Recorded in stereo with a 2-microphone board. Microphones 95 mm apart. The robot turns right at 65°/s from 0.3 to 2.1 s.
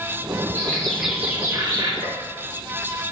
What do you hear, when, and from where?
0.6 s a bird: 145° left, 1.7 m; by 1.9 s 125° right, 1.7 m
2.0 s a gunshot: 85° left, 2.5 m